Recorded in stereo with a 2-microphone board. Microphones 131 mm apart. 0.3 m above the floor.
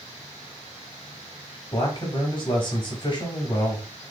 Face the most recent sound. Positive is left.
turn(degrees=40)  # may be behind; listen again after turning